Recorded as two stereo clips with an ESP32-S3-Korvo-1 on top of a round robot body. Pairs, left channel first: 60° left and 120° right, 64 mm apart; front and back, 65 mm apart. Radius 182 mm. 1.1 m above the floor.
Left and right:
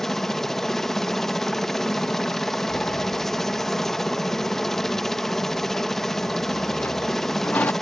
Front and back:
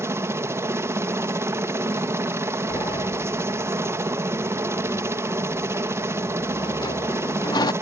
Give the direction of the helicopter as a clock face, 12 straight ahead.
7 o'clock.